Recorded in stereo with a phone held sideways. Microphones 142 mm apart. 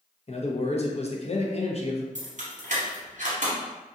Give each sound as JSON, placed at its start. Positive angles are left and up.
{"t": 0.3, "sound": "a man speaking", "side_deg": 45, "distance_m": 0.6}
{"t": 2.1, "sound": "keys jangling", "side_deg": -60, "distance_m": 0.9}